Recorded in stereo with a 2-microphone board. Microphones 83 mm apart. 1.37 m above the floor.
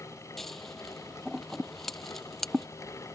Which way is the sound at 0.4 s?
5° left (ahead or behind).